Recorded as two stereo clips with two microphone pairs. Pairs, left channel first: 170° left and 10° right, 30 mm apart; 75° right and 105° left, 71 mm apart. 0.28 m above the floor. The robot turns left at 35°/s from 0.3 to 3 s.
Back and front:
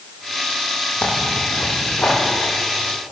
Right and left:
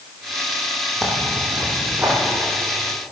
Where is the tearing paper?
160° right, 5.5 m; by 2.1 s 160° left, 5.5 m.